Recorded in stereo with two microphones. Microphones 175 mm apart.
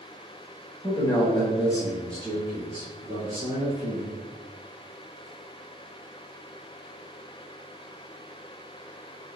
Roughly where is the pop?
I don't hear a pop.